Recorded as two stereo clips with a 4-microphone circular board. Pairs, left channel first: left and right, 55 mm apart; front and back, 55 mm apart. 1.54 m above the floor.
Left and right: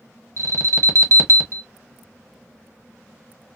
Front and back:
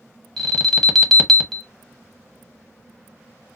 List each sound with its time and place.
0.4 s an alarm: 85° right, 0.9 m